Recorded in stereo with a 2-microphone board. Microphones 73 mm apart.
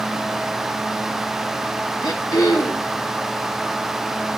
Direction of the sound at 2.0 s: 60° left (ahead or behind).